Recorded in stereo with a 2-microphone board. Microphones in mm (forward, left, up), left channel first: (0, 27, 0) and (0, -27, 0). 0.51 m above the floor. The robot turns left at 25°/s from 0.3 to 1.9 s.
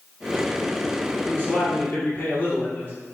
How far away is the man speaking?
About 1.8 m.